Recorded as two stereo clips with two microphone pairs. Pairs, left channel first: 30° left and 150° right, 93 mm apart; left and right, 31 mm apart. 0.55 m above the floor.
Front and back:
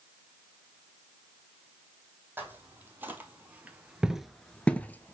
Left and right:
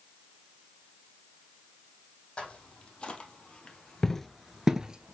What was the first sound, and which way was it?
Footsteps, 140° left.